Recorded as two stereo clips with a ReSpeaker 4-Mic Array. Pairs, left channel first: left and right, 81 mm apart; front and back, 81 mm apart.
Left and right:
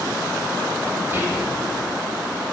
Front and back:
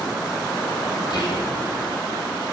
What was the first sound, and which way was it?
Whispering, 30° right.